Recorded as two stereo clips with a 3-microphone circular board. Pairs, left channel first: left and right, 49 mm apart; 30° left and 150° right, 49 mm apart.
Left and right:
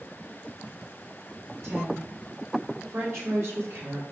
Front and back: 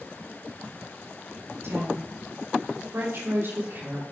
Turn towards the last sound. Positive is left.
turn(degrees=-115)